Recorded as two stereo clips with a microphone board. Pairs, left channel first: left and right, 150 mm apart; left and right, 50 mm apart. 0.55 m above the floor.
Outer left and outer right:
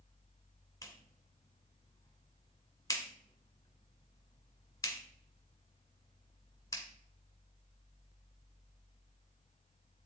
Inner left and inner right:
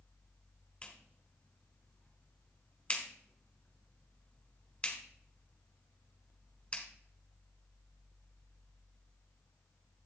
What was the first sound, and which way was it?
A clap, 20° left (ahead or behind).